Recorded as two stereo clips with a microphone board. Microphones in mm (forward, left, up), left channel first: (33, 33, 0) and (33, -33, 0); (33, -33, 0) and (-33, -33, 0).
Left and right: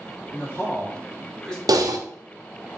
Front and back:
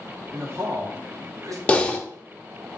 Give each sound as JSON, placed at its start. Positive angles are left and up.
{"t": 0.3, "sound": "a man speaking", "azimuth_deg": 135, "distance_m": 1.3}
{"t": 1.7, "sound": "typing on a keyboard", "azimuth_deg": -70, "distance_m": 0.5}